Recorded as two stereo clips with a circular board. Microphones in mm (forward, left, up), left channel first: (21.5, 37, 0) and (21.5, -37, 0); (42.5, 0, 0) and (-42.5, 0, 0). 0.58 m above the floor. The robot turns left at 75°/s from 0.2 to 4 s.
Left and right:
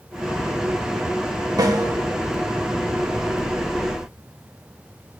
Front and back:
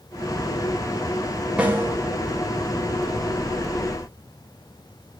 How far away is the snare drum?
About 0.8 m.